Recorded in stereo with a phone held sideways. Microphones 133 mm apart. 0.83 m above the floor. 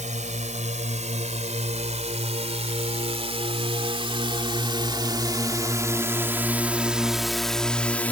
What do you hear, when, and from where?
0.0 s a drone: 65° right (ahead or behind); by 8.1 s 10° left (ahead or behind)